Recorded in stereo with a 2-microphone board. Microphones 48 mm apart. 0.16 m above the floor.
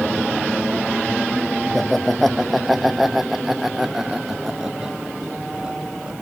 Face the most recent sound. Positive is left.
turn(degrees=-20)  # may be behind; listen again after turning